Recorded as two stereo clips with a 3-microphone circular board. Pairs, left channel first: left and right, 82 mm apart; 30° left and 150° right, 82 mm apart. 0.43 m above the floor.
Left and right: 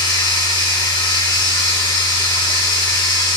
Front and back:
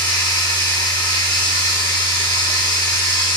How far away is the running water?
About 7 m.